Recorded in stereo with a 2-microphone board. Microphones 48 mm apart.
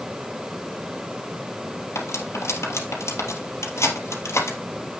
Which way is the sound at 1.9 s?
80° left.